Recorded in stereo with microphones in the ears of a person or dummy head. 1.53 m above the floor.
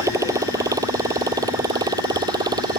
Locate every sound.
0.0 s a motorcycle: 20° right (ahead or behind); by 2.8 s 25° right (ahead or behind)